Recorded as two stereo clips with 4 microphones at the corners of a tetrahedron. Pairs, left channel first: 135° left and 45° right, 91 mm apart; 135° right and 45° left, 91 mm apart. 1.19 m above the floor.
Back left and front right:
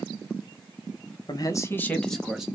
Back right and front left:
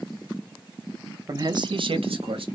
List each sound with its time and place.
1.3 s a man speaking: 95° left, 0.8 m; by 2.5 s 40° left, 1.0 m